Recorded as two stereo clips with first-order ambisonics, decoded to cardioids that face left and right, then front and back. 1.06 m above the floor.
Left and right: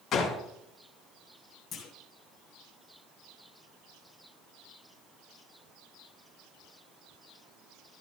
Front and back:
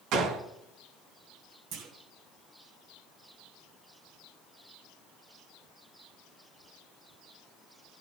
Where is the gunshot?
145° left, 2.5 m.